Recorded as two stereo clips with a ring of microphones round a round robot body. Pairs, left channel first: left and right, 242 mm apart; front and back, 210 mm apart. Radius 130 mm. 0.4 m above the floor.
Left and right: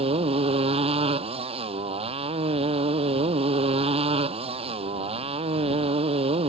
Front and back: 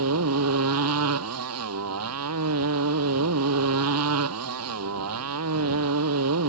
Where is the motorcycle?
160° right.